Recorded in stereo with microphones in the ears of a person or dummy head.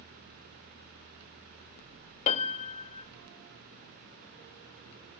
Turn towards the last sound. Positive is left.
turn(degrees=40)  # may be behind; listen again after turning